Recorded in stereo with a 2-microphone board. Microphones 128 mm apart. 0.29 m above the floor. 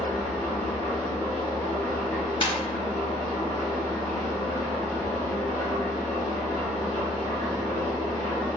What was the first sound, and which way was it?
An engine running, 25° left (ahead or behind).